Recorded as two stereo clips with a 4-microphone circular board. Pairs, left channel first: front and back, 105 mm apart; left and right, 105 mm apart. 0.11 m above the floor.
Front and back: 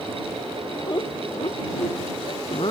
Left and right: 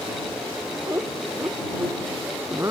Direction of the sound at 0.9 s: 35° right.